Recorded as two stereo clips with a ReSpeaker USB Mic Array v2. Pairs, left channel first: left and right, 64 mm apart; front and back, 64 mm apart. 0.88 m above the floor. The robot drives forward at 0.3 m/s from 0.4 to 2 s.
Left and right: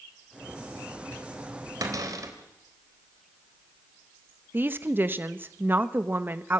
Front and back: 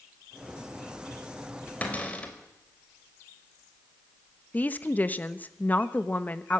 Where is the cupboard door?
65° right, 3.5 m.